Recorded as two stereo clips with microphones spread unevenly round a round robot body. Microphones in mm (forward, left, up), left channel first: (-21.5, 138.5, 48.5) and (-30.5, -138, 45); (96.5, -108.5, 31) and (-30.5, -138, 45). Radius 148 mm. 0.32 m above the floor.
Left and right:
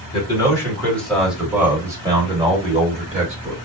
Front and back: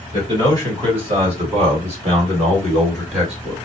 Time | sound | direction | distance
0.1 | a man speaking | 150° left | 1.7 m